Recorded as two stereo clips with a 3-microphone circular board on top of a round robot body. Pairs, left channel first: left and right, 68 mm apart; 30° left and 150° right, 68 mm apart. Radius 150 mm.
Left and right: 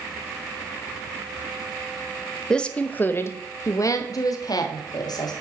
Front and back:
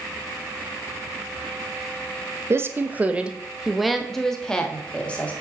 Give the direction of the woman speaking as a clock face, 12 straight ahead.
6 o'clock.